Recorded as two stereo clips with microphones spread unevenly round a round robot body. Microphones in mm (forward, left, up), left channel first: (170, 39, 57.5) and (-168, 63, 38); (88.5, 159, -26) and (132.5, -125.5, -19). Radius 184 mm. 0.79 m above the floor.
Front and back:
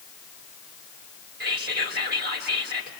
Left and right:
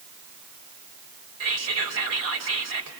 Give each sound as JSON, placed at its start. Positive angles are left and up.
{"t": 1.4, "sound": "whispering", "azimuth_deg": -120, "distance_m": 3.0}